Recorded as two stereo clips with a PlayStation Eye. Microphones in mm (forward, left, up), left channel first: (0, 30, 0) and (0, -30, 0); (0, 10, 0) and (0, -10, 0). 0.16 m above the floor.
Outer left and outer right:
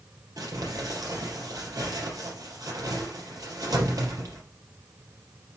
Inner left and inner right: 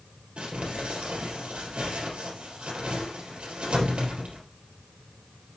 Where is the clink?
I don't hear a clink.